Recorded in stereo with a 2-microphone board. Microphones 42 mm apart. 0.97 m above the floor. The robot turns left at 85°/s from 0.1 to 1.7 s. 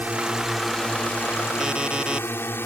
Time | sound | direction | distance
0.0 | a drone | 140° right | ?
1.6 | an alarm clock | 15° right (ahead or behind) | ?